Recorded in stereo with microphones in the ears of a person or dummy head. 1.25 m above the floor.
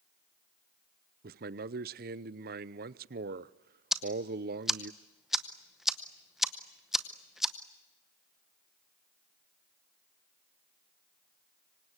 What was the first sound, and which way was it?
A man speaking, 50° right (ahead or behind).